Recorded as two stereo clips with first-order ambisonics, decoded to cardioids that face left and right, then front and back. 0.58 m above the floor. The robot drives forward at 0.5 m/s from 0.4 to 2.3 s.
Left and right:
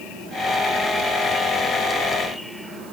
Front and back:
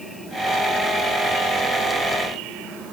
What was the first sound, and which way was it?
Only background noise.